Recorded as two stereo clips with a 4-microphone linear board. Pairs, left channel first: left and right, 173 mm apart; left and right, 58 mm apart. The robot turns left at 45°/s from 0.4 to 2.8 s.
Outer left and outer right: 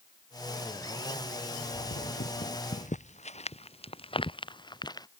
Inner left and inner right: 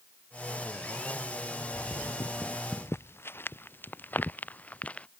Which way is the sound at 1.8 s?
70° left (ahead or behind).